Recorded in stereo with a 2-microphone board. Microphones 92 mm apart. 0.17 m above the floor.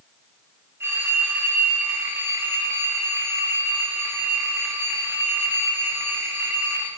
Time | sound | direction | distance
0.8 | a phone ringing | 30° right (ahead or behind) | 7.5 m